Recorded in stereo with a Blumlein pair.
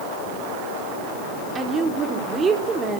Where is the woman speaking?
20° right, 3.5 m.